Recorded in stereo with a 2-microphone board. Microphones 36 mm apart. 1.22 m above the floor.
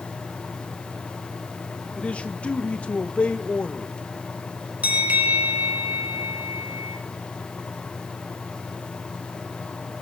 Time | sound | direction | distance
2.0 | a man speaking | 35° left (ahead or behind) | 1.8 m
4.8 | a bell | 45° right (ahead or behind) | 4.5 m